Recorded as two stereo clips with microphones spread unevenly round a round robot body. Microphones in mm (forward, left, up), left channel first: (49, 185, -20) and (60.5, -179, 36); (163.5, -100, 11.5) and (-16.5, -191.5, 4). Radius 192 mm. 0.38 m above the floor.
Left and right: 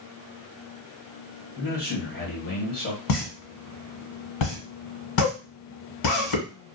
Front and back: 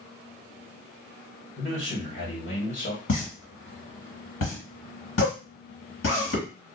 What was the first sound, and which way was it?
A man speaking, 40° left.